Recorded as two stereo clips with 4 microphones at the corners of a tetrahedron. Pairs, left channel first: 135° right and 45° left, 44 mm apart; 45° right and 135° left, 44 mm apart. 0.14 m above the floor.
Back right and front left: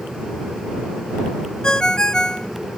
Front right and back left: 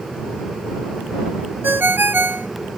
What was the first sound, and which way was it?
A ringtone, 155° left.